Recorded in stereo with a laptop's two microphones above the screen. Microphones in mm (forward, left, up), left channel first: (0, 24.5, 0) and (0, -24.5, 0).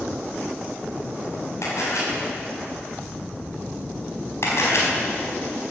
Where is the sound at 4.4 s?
65° left (ahead or behind), 4.5 m.